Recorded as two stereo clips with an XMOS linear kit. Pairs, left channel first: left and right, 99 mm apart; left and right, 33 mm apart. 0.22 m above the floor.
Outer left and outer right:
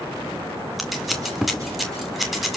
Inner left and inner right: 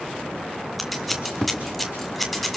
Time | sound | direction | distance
0.8 | scissors | centre (ahead or behind) | 2 m